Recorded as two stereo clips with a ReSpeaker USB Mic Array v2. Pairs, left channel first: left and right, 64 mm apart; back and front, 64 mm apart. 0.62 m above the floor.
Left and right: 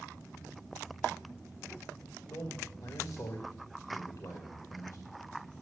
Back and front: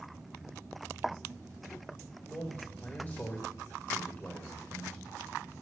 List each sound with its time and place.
2.2 s a man speaking: 120° left, 2 m